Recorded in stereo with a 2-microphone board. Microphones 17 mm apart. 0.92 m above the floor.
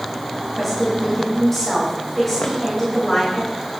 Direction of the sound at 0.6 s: 10° left (ahead or behind).